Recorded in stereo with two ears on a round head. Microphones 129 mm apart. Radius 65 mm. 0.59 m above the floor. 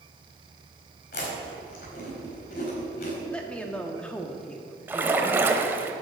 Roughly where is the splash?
Centre.